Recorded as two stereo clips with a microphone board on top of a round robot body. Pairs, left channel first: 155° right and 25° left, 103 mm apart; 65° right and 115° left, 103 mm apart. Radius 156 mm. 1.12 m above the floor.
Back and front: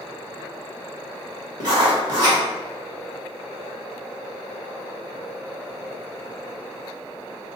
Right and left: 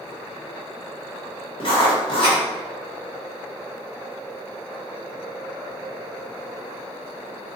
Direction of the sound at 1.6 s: 25° right.